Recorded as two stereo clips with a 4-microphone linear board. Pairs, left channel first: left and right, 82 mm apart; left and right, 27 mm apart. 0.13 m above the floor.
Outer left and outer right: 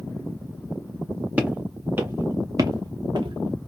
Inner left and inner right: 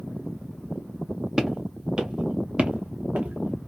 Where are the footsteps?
20° right (ahead or behind), 1.2 m; by 3.7 s 80° right, 0.7 m.